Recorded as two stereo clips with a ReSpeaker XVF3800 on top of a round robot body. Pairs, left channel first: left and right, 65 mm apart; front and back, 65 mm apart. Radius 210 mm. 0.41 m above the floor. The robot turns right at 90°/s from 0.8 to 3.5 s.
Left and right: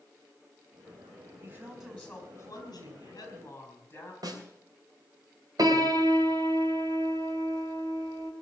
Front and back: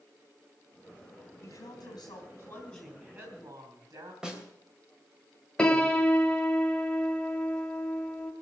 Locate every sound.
1.4 s a woman speaking: 35° right, 6 m; by 4.1 s 150° left, 6 m
4.2 s a snare drum: 100° right, 3 m
5.6 s a piano: 75° right, 2.5 m